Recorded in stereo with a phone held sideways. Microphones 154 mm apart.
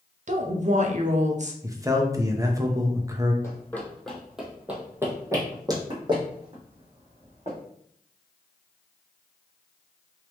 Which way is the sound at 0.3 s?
50° right (ahead or behind).